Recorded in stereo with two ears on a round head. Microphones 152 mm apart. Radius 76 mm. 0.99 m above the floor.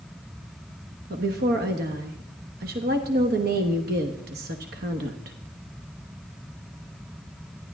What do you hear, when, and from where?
1.1 s a woman speaking: 60° right (ahead or behind), 1.2 m